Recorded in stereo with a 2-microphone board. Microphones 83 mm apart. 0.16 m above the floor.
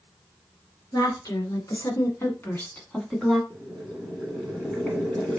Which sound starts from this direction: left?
A woman speaking, at 0.9 s.